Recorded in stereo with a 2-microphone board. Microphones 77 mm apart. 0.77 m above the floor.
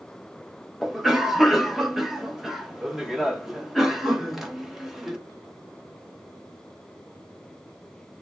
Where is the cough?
5° right (ahead or behind), 0.5 m.